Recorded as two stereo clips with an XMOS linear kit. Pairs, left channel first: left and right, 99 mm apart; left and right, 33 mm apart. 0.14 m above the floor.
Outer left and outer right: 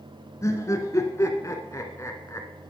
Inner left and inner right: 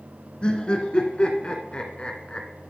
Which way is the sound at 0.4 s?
30° left (ahead or behind).